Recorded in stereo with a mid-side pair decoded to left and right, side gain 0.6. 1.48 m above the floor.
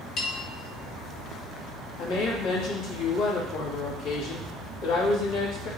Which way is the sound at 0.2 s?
60° left.